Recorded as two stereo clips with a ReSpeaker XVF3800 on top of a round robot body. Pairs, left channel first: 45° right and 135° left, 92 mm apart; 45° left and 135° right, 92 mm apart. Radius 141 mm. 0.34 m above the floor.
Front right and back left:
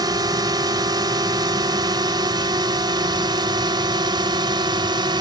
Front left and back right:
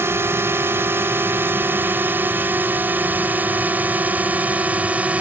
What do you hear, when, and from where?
0.0 s a drone: 165° left; by 5.2 s 155° left